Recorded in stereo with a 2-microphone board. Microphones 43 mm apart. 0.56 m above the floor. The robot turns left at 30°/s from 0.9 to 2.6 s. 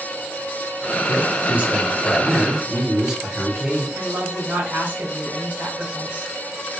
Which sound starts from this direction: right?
A woman speaking, at 4.0 s.